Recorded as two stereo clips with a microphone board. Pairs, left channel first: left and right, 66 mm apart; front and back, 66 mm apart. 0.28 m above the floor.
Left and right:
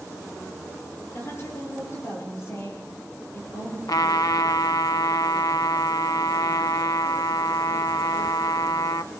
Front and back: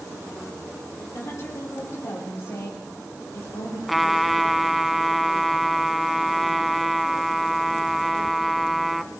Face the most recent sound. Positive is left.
turn(degrees=90)